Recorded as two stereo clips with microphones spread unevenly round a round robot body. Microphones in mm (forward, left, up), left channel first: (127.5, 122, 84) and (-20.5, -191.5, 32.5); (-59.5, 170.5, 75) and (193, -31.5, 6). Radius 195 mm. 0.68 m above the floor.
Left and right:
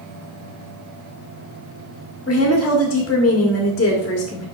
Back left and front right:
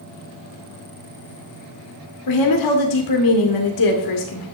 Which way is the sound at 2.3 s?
135° left.